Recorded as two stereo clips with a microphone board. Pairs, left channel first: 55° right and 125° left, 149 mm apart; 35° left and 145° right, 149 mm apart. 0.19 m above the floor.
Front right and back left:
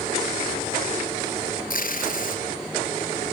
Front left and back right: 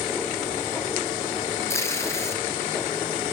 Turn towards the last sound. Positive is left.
turn(degrees=-35)